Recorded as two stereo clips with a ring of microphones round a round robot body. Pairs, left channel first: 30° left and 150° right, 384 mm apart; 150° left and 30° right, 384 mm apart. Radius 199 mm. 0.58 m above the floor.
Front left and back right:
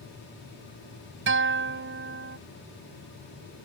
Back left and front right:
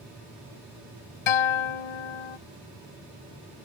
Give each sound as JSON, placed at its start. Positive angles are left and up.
{"t": 1.3, "sound": "a guitar", "azimuth_deg": 150}